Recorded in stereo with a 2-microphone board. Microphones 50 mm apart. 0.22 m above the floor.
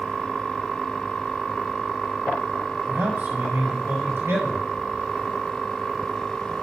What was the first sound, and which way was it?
A man speaking, 50° right (ahead or behind).